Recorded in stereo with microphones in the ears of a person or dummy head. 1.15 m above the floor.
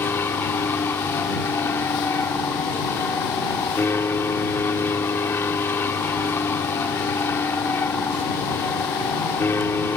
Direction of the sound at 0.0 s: 15° left (ahead or behind).